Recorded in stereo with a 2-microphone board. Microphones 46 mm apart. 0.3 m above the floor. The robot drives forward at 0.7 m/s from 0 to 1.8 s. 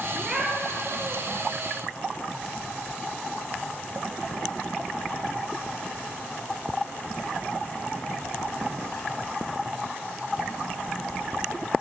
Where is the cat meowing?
15° right (ahead or behind), 3 m.